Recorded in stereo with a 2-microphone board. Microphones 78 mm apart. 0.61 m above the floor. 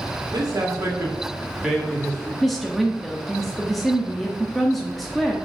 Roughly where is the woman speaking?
Centre.